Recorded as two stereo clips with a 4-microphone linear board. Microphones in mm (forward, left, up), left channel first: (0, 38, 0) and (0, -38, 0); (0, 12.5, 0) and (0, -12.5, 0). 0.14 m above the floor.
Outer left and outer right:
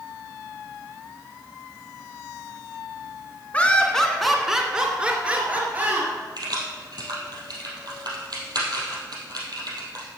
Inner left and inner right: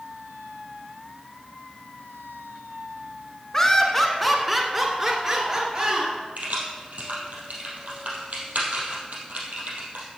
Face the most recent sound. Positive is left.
turn(degrees=-70)  # may be behind; listen again after turning